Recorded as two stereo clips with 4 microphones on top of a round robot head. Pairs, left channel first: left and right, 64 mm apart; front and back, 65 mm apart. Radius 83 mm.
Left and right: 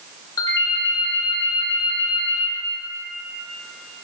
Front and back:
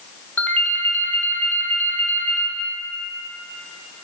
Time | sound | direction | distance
0.4 | a ringtone | 65° left | 1.3 m